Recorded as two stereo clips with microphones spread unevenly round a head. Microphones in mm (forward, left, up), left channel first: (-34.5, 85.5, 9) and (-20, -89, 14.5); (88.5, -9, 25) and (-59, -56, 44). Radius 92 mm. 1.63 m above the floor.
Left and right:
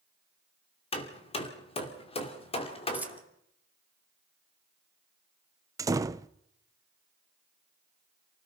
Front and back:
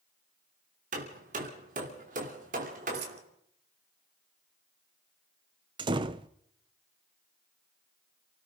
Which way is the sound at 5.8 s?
140° right.